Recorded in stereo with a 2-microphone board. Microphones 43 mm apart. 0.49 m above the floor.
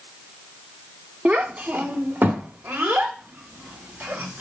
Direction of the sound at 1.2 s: 35° right (ahead or behind).